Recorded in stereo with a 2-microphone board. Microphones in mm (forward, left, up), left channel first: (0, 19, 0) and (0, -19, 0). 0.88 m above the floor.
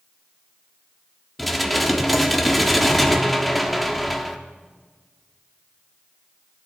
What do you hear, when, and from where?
1.4 s dishes clattering: centre (ahead or behind), 0.8 m